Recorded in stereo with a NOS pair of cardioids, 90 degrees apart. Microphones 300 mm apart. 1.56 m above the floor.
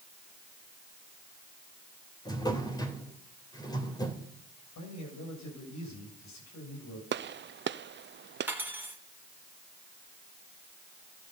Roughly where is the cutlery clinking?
Ahead.